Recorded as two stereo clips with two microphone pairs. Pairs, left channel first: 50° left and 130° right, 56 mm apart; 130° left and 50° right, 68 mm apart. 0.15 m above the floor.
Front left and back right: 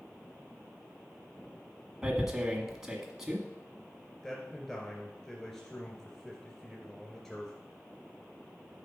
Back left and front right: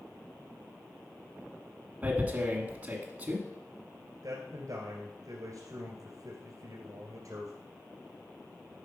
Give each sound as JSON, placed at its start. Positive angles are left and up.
{"t": 2.0, "sound": "tearing paper", "azimuth_deg": -60, "distance_m": 1.5}
{"t": 4.2, "sound": "a man speaking", "azimuth_deg": -35, "distance_m": 2.0}